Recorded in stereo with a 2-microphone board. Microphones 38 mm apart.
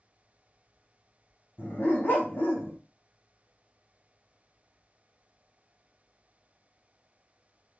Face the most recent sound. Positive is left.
turn(degrees=80)